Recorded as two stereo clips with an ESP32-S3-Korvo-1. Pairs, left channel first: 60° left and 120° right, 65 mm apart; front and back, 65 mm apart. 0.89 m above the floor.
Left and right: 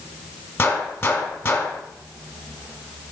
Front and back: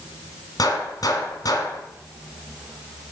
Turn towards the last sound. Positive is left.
turn(degrees=15)